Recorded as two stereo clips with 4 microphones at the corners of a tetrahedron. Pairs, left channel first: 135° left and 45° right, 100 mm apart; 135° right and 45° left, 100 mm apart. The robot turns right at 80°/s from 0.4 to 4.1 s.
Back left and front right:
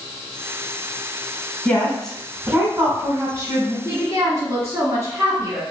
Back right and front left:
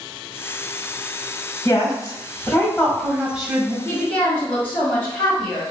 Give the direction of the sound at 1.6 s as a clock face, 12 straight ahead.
6 o'clock.